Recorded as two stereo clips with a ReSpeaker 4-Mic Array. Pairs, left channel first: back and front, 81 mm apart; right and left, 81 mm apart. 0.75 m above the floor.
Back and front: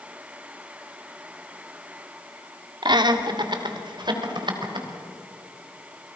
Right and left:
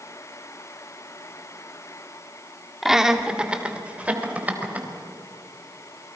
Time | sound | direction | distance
2.8 | laughter | 5° left | 1.7 m